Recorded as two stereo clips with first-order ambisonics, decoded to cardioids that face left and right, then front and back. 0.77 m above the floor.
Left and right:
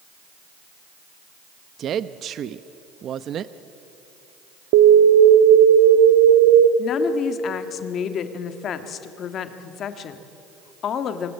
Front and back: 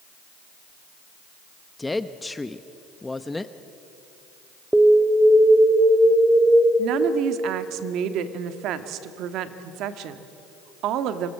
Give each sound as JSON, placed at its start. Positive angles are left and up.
{"t": 1.8, "sound": "a woman speaking", "azimuth_deg": -75, "distance_m": 0.5}
{"t": 4.7, "sound": "an alarm", "azimuth_deg": -95, "distance_m": 1.0}
{"t": 6.8, "sound": "a woman speaking", "azimuth_deg": 145, "distance_m": 1.4}